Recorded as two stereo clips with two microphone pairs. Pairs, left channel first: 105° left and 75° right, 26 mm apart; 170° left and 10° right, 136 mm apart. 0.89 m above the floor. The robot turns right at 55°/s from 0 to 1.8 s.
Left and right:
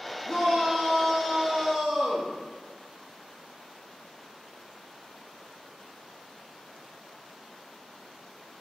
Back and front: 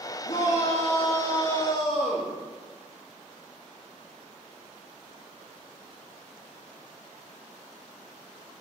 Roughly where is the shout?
Behind.